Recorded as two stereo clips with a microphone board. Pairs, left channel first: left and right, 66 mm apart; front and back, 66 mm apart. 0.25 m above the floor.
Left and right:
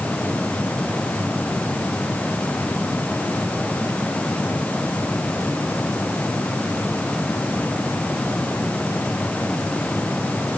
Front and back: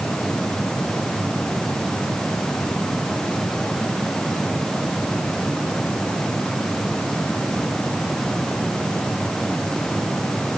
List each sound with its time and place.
Only background noise.